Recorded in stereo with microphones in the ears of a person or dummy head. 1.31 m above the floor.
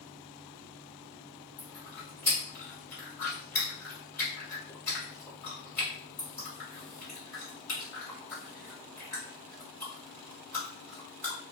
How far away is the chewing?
About 1.4 m.